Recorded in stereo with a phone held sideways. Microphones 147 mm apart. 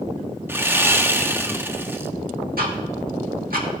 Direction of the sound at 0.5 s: 15° right (ahead or behind).